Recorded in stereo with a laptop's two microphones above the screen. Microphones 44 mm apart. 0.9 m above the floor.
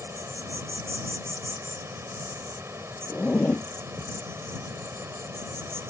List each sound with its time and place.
0.0 s an insect: 90° right
3.1 s a zipper: 25° left (ahead or behind)